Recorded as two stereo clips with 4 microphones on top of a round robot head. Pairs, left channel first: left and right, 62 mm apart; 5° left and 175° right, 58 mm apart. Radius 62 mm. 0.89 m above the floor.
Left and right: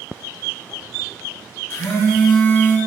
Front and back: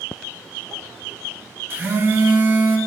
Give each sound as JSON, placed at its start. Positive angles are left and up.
{"t": 1.7, "sound": "a phone buzzing", "azimuth_deg": 135, "distance_m": 1.2}